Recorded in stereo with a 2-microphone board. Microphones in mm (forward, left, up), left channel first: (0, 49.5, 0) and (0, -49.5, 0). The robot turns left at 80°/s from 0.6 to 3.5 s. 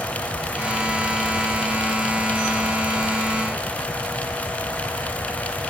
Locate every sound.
Only background noise.